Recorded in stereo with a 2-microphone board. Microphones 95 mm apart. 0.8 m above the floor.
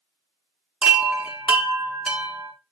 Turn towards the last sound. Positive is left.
turn(degrees=-10)  # may be behind; listen again after turning